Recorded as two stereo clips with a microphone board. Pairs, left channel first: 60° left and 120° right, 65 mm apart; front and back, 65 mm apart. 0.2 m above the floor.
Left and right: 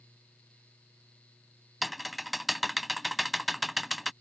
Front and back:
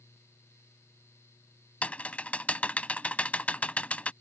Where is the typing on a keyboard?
30° right.